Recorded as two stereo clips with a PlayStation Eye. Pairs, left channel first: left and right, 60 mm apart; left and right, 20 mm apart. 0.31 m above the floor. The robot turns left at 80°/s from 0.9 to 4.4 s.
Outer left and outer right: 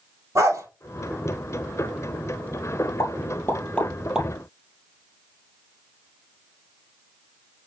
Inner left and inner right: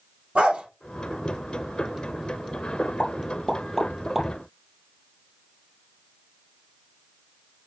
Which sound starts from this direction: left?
A pop, at 3.0 s.